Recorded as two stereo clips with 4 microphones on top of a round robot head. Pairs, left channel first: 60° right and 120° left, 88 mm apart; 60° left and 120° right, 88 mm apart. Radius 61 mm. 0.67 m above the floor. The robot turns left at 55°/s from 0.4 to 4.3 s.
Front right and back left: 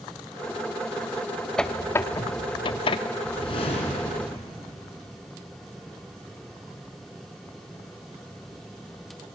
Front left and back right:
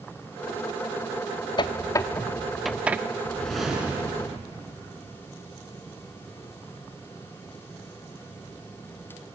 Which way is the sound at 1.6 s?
25° left.